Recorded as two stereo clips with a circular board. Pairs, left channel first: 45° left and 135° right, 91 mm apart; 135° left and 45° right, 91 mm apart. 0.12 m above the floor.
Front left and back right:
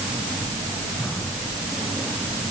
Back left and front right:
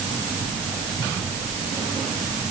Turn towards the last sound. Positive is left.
No sound to turn to.